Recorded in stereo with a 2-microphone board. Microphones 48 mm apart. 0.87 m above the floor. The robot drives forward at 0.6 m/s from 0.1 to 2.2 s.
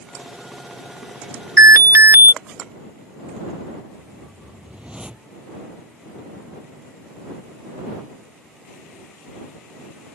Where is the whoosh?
20° right (ahead or behind).